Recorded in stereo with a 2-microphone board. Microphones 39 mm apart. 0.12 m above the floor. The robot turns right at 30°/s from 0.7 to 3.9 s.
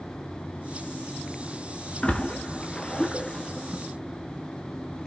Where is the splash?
25° left (ahead or behind), 1.5 m; by 3.8 s 5° right (ahead or behind), 1.5 m.